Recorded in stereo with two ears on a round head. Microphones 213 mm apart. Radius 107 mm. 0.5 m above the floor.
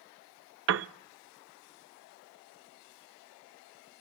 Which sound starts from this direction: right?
A piano, at 0.7 s.